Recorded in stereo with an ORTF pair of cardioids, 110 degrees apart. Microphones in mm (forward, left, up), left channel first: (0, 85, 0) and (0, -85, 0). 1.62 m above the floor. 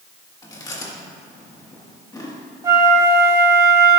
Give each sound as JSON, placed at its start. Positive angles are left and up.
{"t": 0.4, "sound": "chewing", "azimuth_deg": 20, "distance_m": 2.0}
{"t": 2.6, "sound": "a flute", "azimuth_deg": -20, "distance_m": 2.5}